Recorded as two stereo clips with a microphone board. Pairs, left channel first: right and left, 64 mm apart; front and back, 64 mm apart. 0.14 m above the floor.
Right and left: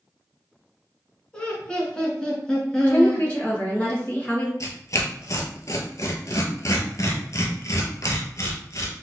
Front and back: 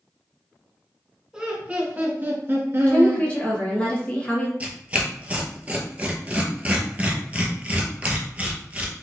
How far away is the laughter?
About 1.1 m.